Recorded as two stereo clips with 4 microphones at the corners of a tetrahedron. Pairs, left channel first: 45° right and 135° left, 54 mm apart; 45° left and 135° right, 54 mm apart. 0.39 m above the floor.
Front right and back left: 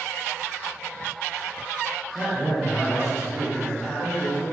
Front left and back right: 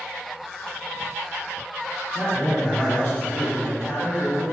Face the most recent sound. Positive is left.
turn(degrees=45)